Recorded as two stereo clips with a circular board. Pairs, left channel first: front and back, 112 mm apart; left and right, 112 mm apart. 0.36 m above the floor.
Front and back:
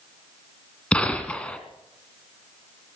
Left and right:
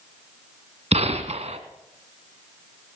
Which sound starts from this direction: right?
A gunshot, at 0.9 s.